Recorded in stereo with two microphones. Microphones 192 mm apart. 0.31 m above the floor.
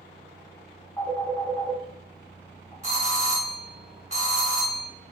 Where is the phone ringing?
15° left (ahead or behind), 1.5 m.